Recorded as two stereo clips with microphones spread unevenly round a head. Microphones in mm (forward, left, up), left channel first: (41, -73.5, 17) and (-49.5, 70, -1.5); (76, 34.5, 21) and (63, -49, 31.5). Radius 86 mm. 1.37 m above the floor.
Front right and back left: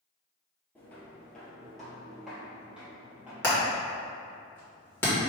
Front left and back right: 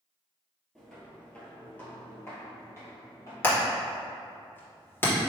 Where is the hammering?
15° left, 1.7 m.